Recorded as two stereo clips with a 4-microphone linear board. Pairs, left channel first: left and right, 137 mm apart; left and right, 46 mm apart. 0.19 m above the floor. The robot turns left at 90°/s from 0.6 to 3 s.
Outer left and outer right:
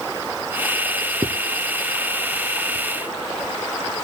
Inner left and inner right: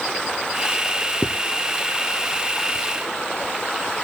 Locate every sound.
1.2 s a zipper: 40° right (ahead or behind), 0.7 m; by 1.3 s 35° right (ahead or behind), 0.7 m